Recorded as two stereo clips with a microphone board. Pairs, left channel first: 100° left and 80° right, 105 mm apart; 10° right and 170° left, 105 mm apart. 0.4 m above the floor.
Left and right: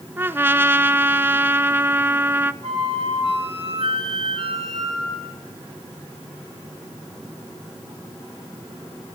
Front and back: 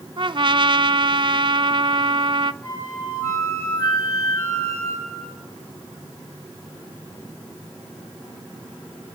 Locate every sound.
0.2 s a trumpet: 150° right, 0.7 m
2.6 s a flute: 75° right, 9 m